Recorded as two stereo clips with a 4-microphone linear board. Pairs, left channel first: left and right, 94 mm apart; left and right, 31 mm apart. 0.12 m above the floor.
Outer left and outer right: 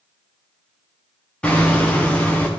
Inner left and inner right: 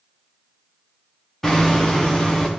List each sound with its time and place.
1.4 s hammering: 15° left (ahead or behind), 3.5 m